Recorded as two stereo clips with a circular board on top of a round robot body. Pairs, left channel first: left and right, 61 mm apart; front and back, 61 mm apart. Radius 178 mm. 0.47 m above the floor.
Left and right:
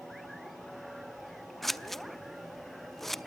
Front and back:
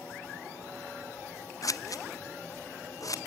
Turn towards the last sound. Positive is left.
turn(degrees=5)